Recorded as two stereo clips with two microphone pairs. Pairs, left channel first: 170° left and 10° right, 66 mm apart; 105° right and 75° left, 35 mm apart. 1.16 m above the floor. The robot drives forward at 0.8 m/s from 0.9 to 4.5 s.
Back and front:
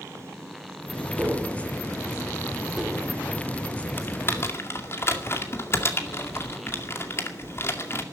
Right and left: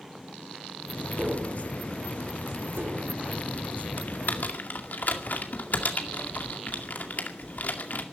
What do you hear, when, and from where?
1.2 s tapping: 50° left, 2.5 m; by 3.0 s 80° left, 2 m
4.0 s typing on a keyboard: 135° right, 1.8 m; by 8.0 s 140° right, 2 m